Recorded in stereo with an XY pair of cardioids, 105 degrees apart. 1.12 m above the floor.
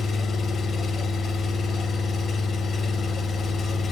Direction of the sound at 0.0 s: 45° left.